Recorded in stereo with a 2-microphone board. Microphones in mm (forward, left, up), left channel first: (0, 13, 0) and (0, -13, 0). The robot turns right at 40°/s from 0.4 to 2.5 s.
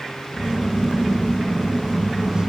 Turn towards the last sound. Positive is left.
No sound to turn to.